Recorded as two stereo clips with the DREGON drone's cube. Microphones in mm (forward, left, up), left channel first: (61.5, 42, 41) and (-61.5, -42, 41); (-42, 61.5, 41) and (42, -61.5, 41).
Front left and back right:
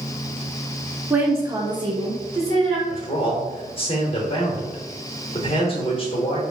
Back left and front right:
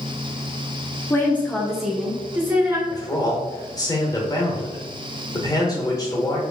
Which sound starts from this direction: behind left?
A woman speaking, at 1.1 s.